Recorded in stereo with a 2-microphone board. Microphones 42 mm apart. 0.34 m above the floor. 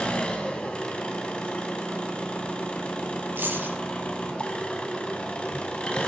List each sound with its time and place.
0.0 s an engine running: 25° left (ahead or behind), 2.5 m
3.4 s keys jangling: 60° right (ahead or behind), 5.5 m